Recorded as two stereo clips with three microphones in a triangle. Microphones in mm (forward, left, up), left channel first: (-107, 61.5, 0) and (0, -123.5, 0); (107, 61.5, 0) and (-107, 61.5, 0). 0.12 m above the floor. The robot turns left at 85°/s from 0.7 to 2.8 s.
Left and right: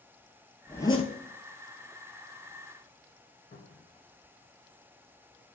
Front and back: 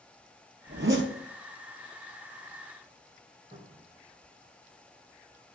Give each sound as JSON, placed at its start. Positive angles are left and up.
{"t": 0.7, "sound": "a zipper", "azimuth_deg": -155, "distance_m": 0.8}
{"t": 3.5, "sound": "a cupboard door", "azimuth_deg": 155, "distance_m": 1.9}